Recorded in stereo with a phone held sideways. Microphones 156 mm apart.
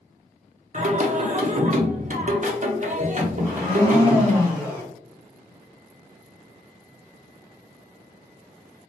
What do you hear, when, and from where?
0.7 s singing: 50° right (ahead or behind), 0.6 m
3.4 s a blender: 10° left (ahead or behind), 1.2 m